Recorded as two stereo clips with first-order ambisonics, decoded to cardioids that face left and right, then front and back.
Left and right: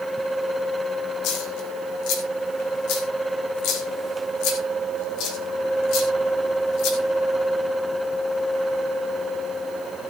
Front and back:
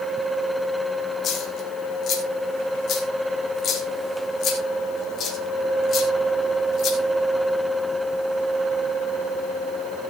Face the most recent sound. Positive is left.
turn(degrees=60)